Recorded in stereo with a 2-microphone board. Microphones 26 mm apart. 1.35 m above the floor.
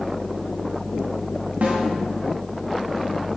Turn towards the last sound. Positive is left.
turn(degrees=-70)  # may be behind; listen again after turning